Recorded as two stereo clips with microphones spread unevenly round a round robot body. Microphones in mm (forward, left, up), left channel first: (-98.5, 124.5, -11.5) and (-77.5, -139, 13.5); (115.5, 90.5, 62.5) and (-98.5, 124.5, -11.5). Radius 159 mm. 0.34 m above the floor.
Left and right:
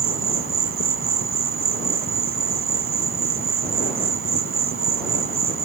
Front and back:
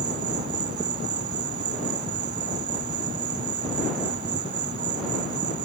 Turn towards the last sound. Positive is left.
turn(degrees=-125)